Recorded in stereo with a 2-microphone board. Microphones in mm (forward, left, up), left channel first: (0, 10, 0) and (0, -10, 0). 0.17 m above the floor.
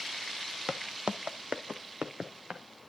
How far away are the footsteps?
About 0.6 m.